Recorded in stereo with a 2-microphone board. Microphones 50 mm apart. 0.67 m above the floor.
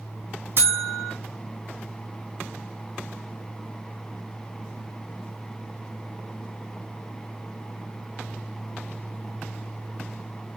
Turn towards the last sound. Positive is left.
turn(degrees=-55)  # may be behind; listen again after turning